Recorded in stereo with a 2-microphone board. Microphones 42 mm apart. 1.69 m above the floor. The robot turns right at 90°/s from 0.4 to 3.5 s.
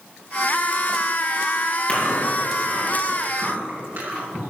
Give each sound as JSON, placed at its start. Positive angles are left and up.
{"t": 1.9, "sound": "chewing", "side_deg": 25, "distance_m": 6.0}